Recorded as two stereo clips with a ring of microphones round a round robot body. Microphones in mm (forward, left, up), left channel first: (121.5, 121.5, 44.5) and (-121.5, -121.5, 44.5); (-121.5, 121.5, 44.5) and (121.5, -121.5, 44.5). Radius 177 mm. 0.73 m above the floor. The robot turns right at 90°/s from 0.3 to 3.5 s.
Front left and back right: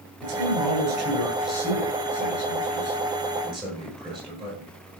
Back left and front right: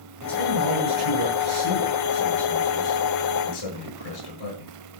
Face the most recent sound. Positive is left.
turn(degrees=150)